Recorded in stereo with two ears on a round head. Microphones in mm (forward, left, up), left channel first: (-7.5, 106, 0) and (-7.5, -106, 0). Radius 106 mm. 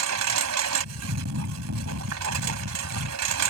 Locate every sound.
0.0 s a lawn mower: 75° right (ahead or behind)